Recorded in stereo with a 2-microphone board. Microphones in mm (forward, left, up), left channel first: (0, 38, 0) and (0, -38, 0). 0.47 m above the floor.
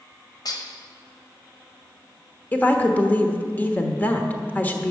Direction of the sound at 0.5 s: 60° left (ahead or behind).